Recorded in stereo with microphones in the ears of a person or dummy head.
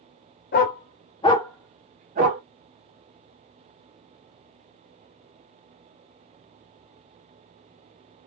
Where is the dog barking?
50° left (ahead or behind), 1.4 m; by 2.4 s 50° right (ahead or behind), 1.2 m.